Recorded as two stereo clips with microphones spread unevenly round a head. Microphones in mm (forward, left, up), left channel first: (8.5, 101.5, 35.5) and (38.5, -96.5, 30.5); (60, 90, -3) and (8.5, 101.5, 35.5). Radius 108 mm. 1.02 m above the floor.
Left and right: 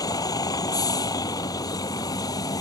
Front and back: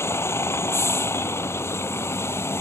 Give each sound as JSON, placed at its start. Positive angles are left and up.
{"t": 0.0, "sound": "a vehicle", "azimuth_deg": 25}